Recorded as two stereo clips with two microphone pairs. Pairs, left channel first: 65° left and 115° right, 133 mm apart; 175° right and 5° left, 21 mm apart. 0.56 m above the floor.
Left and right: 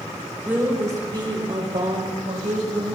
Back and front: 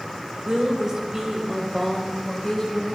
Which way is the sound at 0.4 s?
40° right.